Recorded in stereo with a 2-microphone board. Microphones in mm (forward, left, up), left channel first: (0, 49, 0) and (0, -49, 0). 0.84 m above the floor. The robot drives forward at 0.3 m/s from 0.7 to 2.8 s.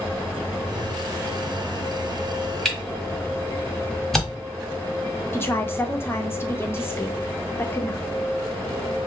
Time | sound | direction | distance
2.6 | a camera shutter | 5° left (ahead or behind) | 1.3 m
5.3 | a woman speaking | 25° left (ahead or behind) | 0.8 m